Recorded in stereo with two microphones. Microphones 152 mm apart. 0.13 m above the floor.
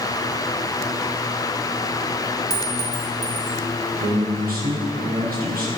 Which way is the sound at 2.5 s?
25° left (ahead or behind).